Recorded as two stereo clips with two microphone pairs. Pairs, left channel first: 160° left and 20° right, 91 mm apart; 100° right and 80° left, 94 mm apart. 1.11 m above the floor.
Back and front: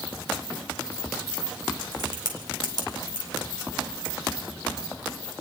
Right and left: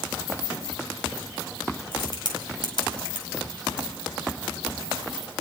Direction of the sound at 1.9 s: 60° right.